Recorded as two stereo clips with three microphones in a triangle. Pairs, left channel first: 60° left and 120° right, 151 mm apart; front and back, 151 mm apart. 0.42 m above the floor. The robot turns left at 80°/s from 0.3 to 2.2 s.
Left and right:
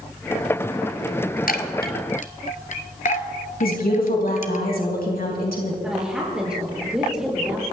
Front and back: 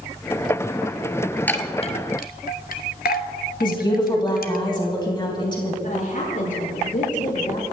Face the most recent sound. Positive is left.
turn(degrees=-35)